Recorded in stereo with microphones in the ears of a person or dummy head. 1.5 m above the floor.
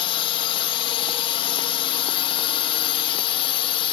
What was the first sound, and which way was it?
A drone, 30° left (ahead or behind).